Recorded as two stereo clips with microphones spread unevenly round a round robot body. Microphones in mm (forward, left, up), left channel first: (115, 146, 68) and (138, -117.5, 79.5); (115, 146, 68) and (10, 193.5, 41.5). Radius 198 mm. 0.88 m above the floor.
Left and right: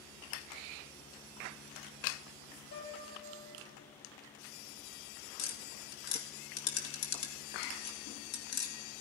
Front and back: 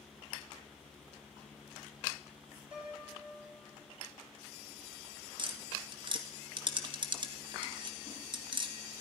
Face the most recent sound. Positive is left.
turn(degrees=115)